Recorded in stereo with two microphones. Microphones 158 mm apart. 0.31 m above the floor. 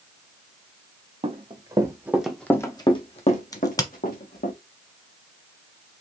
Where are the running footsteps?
40° right (ahead or behind), 1.3 m; by 4.5 s 70° left (ahead or behind), 1.8 m.